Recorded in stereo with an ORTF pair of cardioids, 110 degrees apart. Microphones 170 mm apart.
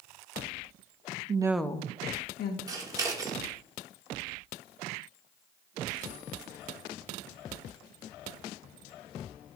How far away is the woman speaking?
About 0.7 m.